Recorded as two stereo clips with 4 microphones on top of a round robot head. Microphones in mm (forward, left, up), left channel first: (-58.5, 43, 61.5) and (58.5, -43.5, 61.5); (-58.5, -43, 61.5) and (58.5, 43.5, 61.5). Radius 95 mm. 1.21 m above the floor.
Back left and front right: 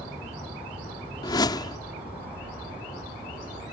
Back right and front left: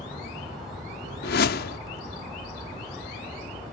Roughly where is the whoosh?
Behind right.